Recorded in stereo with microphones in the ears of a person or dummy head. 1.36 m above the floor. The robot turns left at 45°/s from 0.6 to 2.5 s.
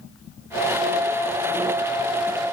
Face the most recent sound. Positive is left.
No sound to turn to.